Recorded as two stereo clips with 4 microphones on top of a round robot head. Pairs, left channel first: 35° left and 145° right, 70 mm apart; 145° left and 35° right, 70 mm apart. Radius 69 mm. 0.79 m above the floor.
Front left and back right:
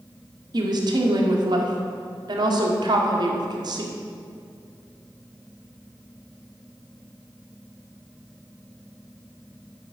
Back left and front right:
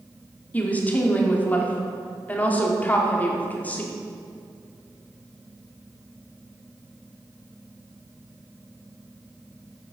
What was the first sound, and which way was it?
A woman speaking, 150° right.